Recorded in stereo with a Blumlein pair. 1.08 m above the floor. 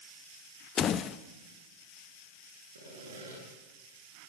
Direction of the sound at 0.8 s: 25° left.